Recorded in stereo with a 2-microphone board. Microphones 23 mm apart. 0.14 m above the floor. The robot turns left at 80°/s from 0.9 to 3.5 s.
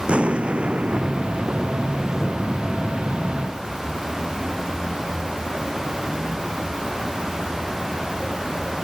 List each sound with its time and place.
0.1 s an explosion: 60° right; by 2.5 s 170° left